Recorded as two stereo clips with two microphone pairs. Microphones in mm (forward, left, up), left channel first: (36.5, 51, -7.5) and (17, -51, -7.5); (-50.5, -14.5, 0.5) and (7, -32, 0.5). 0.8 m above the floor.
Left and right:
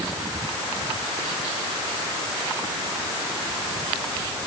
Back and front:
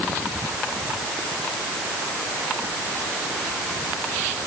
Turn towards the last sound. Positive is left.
No sound to turn to.